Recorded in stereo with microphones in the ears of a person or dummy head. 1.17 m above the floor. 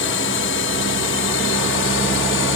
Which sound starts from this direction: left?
A drone, at 0.0 s.